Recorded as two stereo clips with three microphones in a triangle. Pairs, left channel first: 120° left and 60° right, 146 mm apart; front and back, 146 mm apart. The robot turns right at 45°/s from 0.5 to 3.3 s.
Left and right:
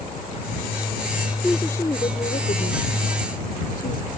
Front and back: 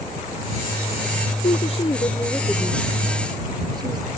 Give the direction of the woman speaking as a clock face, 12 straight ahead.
11 o'clock.